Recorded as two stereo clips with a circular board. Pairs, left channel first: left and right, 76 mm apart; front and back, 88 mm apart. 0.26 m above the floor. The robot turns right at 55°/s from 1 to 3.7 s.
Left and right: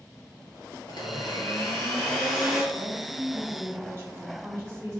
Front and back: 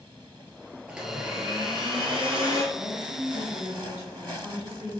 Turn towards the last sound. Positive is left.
turn(degrees=-125)